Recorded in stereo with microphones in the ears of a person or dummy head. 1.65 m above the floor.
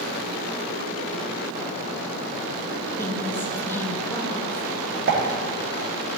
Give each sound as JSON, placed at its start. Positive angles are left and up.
{"t": 2.9, "sound": "a woman speaking", "side_deg": 10, "distance_m": 2.0}
{"t": 5.1, "sound": "a pop", "side_deg": -60, "distance_m": 1.9}